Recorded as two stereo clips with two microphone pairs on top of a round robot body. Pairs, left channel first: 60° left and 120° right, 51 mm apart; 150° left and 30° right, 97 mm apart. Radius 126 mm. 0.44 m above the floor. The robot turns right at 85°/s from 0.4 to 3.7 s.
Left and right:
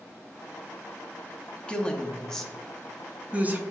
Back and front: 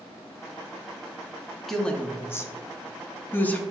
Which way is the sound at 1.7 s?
55° left.